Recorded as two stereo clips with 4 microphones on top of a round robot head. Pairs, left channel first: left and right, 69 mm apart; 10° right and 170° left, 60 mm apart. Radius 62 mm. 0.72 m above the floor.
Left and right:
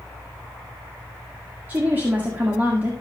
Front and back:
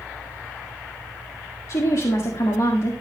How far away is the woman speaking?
About 1.9 m.